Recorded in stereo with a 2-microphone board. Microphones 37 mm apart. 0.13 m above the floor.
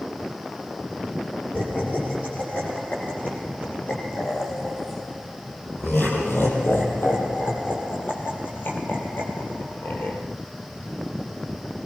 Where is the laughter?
55° left (ahead or behind), 6.5 m; by 10.2 s 65° left (ahead or behind), 4 m.